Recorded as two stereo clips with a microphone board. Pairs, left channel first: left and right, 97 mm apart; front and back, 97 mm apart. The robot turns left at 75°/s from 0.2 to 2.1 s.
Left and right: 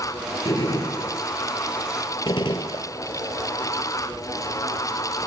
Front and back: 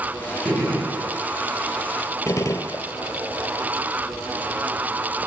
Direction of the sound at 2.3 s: 55° left.